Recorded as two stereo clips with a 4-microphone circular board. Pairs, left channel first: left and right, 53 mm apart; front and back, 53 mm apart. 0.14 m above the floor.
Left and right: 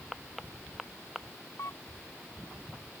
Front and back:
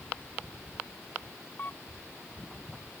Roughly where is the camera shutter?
Ahead left.